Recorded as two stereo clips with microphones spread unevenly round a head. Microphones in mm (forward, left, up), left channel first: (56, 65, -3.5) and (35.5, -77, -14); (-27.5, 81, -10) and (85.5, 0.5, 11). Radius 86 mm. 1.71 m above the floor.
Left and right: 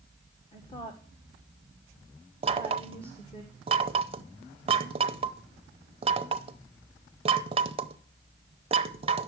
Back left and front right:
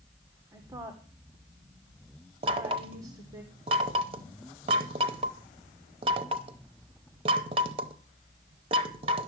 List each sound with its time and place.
0.5 s a woman speaking: 30° left, 1.7 m
2.4 s knocking: 55° right, 0.7 m